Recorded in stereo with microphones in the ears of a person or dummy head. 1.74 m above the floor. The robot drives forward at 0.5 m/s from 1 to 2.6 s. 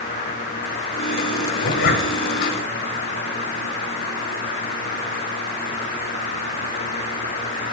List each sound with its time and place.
1.6 s a zipper: 55° left (ahead or behind), 0.6 m